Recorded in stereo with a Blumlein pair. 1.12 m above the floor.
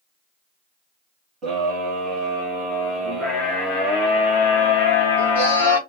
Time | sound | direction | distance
1.4 | a scream | 30° right | 1.8 m